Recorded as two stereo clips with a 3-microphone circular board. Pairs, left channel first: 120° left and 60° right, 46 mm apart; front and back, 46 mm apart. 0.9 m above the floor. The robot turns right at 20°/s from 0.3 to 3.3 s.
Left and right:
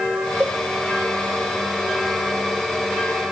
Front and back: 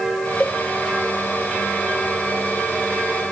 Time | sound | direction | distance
0.4 | a cowbell | 55° right | 0.6 m